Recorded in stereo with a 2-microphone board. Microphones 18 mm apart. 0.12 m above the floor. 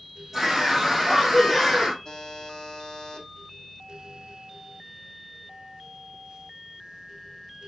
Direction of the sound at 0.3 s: 5° right (ahead or behind).